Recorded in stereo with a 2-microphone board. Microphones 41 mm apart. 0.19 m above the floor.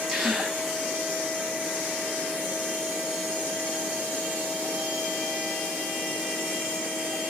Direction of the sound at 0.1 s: 5° right (ahead or behind).